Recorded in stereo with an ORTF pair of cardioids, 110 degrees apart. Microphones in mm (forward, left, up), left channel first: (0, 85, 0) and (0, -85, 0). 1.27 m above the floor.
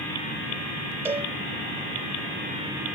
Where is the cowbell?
10° right, 2 m.